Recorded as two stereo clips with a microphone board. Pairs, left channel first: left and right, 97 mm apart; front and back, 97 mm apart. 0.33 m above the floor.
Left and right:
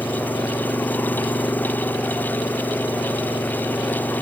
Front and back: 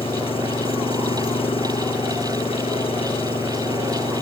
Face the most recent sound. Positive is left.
turn(degrees=20)